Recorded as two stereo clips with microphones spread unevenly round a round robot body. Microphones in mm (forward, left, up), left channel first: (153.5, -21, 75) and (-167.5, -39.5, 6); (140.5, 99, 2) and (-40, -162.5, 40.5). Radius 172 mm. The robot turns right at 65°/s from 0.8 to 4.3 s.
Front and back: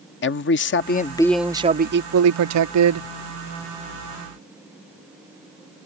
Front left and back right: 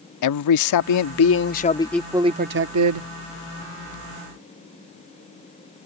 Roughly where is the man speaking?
Ahead left.